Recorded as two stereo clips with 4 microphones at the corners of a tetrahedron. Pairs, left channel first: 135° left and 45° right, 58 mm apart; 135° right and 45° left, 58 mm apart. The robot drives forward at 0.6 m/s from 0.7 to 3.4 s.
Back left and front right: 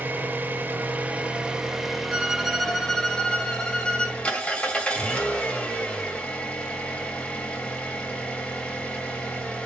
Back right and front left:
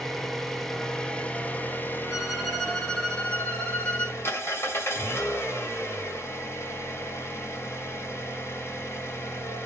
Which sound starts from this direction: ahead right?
An engine running, at 0.0 s.